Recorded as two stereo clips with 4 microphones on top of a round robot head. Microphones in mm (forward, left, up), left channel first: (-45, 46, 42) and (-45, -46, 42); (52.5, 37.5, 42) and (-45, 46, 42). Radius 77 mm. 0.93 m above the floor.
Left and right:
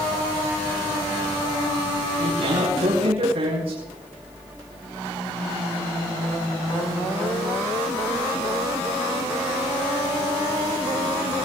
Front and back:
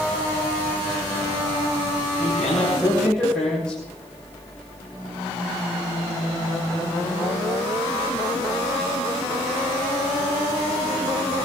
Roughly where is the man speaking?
Right.